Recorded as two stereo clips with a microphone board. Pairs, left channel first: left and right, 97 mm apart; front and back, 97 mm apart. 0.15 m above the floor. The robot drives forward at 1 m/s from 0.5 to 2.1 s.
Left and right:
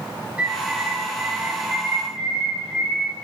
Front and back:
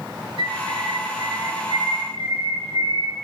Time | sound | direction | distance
0.4 | a bird | 165° right | 5 m